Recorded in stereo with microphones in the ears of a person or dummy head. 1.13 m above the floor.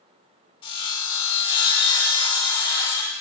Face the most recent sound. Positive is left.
turn(degrees=35)  # may be behind; listen again after turning